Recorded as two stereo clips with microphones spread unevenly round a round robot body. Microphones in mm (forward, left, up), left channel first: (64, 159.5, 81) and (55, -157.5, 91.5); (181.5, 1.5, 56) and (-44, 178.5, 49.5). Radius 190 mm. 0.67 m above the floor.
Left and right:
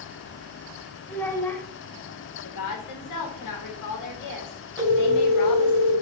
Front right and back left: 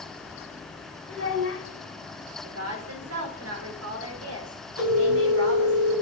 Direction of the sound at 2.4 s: 110° left.